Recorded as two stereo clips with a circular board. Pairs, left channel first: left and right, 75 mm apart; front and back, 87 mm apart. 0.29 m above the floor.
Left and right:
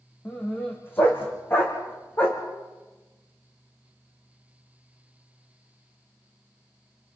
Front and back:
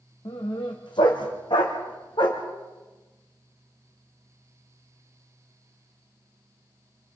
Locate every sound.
0.2 s a dog barking: 30° left, 4.5 m